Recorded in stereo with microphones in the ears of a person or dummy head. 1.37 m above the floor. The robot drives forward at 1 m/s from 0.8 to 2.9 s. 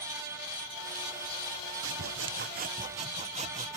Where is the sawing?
70° right (ahead or behind); by 3.8 s 35° right (ahead or behind).